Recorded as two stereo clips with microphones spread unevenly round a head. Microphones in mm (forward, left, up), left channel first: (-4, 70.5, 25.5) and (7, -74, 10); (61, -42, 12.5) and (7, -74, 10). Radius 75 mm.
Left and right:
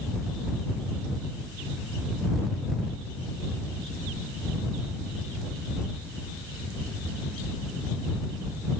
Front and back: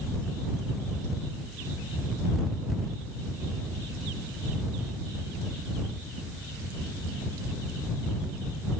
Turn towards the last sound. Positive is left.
No sound to turn to.